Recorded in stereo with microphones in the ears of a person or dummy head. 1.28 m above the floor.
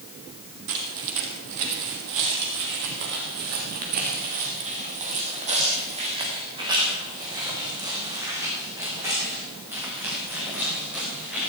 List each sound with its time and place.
0.7 s footsteps: 65° right (ahead or behind), 3 m; by 11.5 s centre (ahead or behind), 5.5 m